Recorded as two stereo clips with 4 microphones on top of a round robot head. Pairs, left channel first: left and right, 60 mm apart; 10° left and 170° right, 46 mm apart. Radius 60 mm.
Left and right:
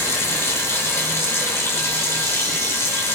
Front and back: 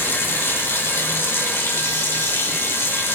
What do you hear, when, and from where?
0.0 s running water: 40° left, 3 m